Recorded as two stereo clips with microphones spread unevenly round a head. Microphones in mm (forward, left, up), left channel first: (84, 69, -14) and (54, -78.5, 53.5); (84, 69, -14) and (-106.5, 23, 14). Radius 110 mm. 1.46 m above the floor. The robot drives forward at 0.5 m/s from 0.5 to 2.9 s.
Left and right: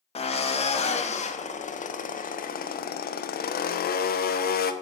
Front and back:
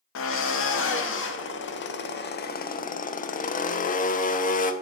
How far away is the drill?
About 2.0 m.